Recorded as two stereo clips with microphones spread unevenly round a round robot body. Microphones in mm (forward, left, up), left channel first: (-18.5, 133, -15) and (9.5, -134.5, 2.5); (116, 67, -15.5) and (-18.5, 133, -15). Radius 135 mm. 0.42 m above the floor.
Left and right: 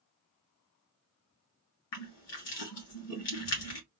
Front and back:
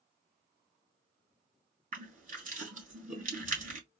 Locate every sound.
1.9 s crushing: 120° left, 3 m